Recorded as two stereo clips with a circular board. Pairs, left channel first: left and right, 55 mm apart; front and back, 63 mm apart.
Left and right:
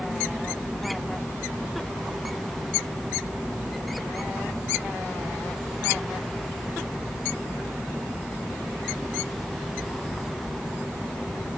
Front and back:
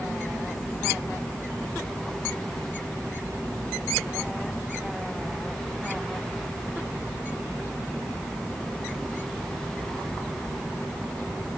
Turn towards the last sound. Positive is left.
No sound to turn to.